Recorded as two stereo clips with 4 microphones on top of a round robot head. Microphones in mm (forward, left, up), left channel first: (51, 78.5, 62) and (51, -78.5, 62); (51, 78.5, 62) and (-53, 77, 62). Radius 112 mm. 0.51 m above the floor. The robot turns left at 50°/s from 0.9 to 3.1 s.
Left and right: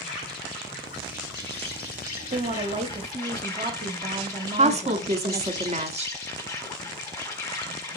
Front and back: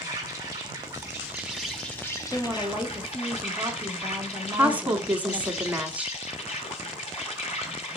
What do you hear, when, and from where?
0.0 s an insect: 130° left, 5 m; by 8.0 s 20° left, 5 m
2.3 s a woman speaking: 85° right, 0.9 m; by 5.6 s 125° right, 0.9 m
4.6 s a woman speaking: 105° right, 1.2 m